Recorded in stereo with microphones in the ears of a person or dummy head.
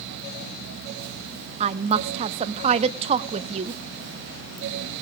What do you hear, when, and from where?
1.6 s a woman speaking: 30° right (ahead or behind), 0.8 m